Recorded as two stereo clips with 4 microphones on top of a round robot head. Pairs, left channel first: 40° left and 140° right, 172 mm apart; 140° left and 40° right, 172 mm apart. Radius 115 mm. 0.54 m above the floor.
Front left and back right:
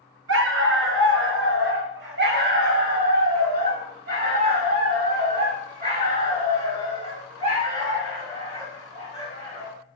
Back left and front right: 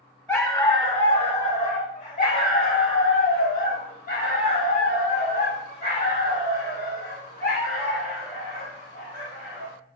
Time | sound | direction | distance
0.3 | a dog barking | 140° right | 1.5 m